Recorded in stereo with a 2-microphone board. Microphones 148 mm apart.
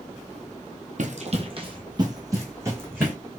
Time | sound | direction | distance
1.0 | running footsteps | 60° right (ahead or behind) | 0.9 m